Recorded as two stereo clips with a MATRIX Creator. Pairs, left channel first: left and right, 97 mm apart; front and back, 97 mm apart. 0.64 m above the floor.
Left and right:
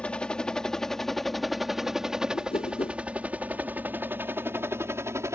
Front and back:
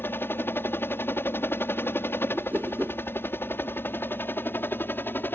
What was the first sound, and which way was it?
A helicopter, 25° left.